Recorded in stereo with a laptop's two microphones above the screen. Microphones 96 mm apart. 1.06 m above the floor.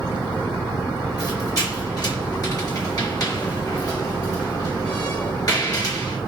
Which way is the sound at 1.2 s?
45° left (ahead or behind).